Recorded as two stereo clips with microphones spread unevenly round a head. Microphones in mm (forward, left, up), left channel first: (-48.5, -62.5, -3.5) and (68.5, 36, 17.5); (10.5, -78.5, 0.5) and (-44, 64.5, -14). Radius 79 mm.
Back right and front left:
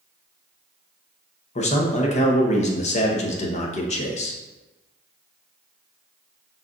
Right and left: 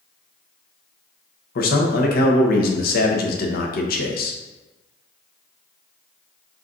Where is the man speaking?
90° right, 0.9 m.